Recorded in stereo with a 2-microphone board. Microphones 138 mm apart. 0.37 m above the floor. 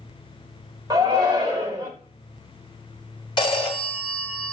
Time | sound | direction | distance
0.9 | a shout | 30° right (ahead or behind) | 1.0 m
3.4 | a phone ringing | 35° left (ahead or behind) | 1.0 m